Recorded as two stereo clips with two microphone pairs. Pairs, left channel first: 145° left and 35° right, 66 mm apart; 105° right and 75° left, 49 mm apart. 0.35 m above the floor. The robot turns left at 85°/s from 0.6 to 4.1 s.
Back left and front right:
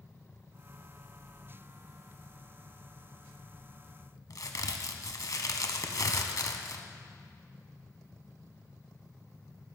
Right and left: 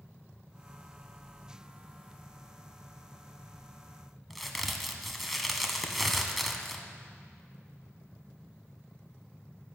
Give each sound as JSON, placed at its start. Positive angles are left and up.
{"t": 4.3, "sound": "a crack", "azimuth_deg": 170, "distance_m": 1.1}